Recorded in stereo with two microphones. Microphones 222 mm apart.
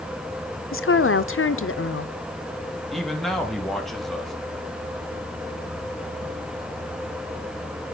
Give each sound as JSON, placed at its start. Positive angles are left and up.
{"t": 0.7, "sound": "a woman speaking", "side_deg": 70, "distance_m": 0.6}
{"t": 2.9, "sound": "a man speaking", "side_deg": 0, "distance_m": 1.5}